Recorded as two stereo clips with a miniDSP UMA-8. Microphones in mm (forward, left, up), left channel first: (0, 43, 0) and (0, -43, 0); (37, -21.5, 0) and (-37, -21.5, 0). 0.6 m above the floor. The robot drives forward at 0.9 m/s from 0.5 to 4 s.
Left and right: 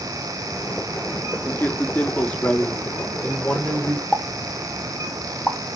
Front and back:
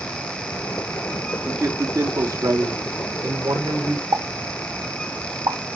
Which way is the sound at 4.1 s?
175° right.